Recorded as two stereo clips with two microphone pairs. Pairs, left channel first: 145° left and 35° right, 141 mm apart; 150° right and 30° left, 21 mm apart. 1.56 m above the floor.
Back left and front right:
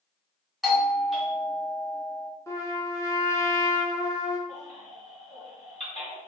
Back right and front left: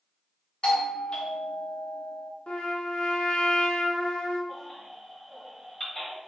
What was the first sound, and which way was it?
A doorbell, 125° right.